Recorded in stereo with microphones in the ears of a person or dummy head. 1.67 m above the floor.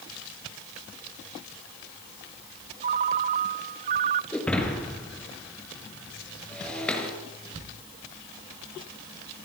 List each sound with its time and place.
2.8 s a ringtone: 40° right (ahead or behind), 0.8 m
4.3 s breaking glass: 5° left (ahead or behind), 5.5 m